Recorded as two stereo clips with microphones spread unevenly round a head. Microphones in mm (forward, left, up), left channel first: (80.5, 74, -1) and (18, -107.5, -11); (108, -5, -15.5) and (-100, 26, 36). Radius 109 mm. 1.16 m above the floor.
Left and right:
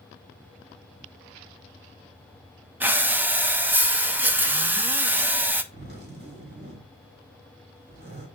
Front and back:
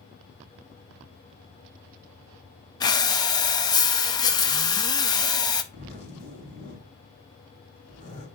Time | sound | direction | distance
2.8 | breathing | 40° right | 0.8 m
5.7 | a zipper | 75° right | 3 m